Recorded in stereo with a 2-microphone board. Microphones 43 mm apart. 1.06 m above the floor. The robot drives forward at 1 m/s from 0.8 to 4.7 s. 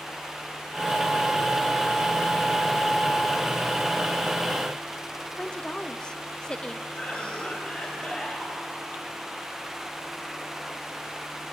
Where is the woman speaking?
20° left (ahead or behind), 0.9 m.